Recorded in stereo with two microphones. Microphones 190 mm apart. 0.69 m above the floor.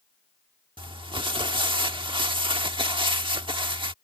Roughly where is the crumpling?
Right.